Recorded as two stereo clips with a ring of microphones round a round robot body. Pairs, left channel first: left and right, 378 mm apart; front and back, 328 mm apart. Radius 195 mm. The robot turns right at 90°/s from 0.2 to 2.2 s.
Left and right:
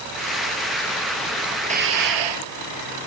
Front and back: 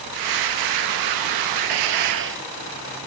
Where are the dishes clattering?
170° right; by 2.5 s 120° right.